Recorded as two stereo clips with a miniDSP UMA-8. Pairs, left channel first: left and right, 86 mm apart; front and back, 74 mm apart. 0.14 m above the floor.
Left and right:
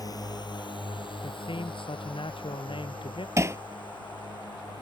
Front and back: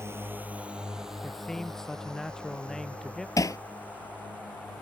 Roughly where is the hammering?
Ahead right.